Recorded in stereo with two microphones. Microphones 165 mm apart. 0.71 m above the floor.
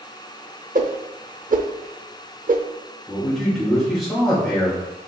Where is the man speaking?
Centre (ahead or behind), 2.5 m.